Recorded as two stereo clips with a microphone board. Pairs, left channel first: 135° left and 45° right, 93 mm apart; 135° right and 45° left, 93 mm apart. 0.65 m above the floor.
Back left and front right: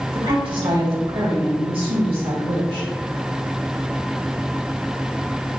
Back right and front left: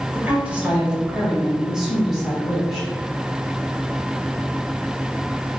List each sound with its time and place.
0.1 s a woman speaking: 25° right, 2.5 m; by 2.9 s 45° right, 4 m